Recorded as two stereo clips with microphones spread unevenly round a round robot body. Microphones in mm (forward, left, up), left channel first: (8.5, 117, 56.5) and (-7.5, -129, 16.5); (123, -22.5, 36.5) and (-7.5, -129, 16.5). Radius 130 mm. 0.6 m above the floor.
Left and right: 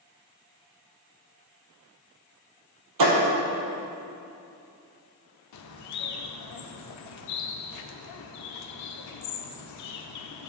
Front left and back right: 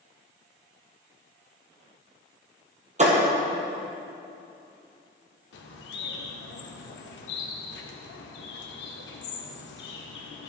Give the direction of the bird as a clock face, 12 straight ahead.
10 o'clock.